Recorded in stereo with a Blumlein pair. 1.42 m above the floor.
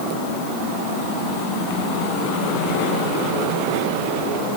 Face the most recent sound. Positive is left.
No sound to turn to.